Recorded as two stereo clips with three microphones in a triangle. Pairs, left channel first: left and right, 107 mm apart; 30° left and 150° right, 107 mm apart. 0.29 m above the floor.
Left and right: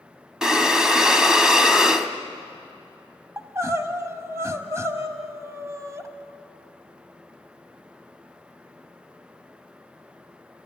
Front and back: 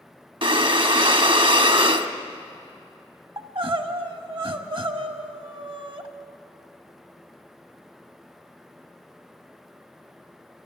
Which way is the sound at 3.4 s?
145° right.